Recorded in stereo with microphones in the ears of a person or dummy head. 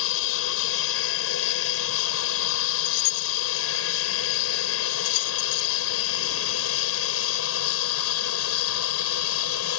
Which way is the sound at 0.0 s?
70° left (ahead or behind).